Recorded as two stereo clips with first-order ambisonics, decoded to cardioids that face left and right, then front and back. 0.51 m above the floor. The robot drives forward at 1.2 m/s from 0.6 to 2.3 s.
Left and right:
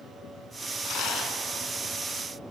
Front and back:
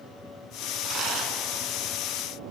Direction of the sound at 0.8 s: 120° left.